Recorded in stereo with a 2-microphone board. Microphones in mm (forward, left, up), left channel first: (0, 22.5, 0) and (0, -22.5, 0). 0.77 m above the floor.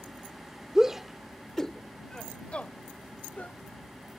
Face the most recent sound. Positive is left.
turn(degrees=40)  # may be behind; listen again after turning